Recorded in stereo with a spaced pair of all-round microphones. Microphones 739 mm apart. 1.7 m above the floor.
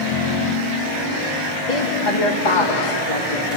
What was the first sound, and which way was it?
A woman speaking, 70° left (ahead or behind).